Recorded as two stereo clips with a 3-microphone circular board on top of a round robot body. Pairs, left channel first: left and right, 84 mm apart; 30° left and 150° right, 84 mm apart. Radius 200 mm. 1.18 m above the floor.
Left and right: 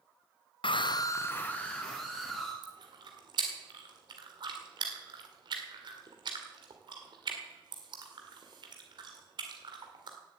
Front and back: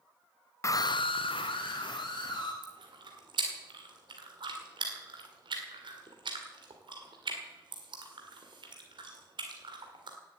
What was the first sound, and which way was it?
A scream, 85° left.